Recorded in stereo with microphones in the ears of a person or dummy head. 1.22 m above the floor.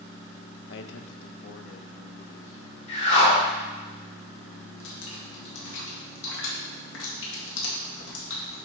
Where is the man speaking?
65° left (ahead or behind), 0.6 m; by 2.8 s 70° left (ahead or behind), 2 m.